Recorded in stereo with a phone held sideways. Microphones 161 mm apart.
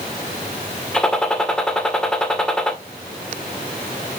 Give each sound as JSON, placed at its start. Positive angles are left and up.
{"t": 0.9, "sound": "a gunshot", "side_deg": 5, "distance_m": 2.0}